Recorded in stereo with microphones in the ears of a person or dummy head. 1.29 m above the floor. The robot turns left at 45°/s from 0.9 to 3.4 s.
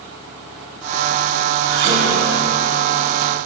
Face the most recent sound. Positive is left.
turn(degrees=180)